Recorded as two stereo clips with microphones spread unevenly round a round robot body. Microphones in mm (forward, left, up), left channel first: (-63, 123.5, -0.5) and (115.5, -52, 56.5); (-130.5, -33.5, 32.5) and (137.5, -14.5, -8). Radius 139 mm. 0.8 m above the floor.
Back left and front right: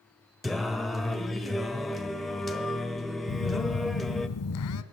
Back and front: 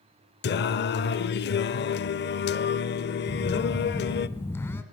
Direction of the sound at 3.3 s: 105° left.